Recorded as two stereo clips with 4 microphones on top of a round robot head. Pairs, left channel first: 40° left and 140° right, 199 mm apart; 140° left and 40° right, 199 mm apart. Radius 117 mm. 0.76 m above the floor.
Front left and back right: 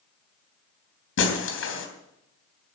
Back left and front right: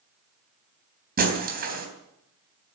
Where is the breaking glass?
10° left, 3 m.